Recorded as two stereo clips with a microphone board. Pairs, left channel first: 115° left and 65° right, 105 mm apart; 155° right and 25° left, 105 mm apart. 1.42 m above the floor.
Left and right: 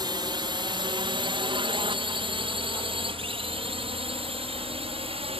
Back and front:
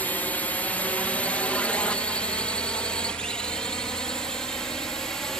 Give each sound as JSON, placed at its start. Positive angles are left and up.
{"t": 0.0, "sound": "a drone", "azimuth_deg": -90}